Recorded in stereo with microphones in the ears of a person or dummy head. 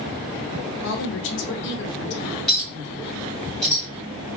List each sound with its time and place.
0.8 s a woman speaking: 60° left (ahead or behind), 1.3 m
2.5 s a clink: 5° left (ahead or behind), 2.5 m